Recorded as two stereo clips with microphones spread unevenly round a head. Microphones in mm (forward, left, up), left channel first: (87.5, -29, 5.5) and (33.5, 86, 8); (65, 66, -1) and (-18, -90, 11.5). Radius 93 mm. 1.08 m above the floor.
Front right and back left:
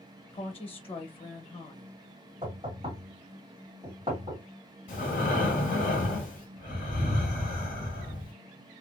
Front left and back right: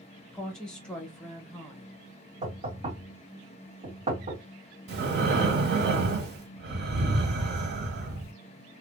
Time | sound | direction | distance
0.3 | a woman speaking | 25° right | 0.9 m
2.4 | knocking | straight behind | 1.6 m
4.9 | breathing | 110° right | 1.5 m